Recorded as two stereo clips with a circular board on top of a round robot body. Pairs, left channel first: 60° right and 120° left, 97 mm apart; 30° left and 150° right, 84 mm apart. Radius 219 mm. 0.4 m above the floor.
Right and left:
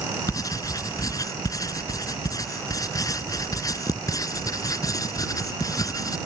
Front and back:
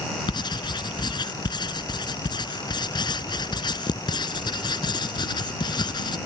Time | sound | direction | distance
0.3 | writing | 5° right | ?